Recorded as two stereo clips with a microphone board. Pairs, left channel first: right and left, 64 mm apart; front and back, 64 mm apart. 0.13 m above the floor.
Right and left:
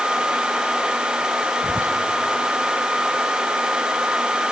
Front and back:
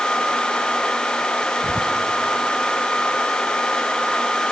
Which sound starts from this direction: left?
Whispering, at 1.6 s.